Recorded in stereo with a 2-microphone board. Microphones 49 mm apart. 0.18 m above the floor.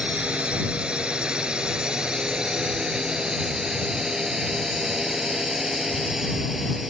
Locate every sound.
0.0 s a drone: 25° right (ahead or behind); by 6.9 s 5° right (ahead or behind)